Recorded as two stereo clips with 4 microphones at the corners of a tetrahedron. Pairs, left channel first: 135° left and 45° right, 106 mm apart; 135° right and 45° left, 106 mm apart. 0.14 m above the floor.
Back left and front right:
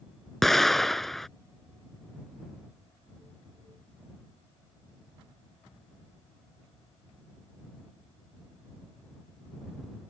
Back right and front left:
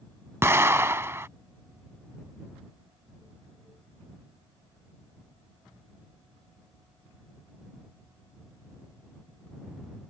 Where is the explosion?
50° left.